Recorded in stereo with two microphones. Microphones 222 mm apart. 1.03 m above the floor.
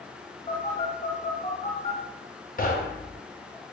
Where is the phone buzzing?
35° left (ahead or behind), 1.0 m.